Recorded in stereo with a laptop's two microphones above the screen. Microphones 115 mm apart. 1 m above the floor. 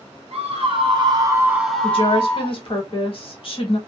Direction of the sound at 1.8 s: 50° left (ahead or behind).